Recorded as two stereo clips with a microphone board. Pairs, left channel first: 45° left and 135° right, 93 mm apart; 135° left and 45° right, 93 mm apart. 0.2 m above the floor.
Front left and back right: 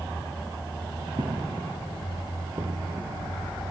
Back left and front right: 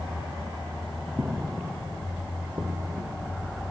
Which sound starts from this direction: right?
Footsteps, at 1.2 s.